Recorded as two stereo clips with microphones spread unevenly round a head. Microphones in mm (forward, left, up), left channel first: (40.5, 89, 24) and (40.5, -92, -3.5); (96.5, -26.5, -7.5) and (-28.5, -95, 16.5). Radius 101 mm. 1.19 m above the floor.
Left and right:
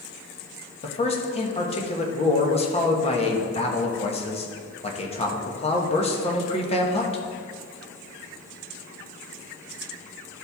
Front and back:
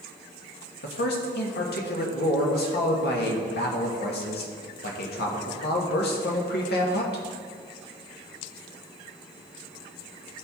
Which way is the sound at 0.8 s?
30° left.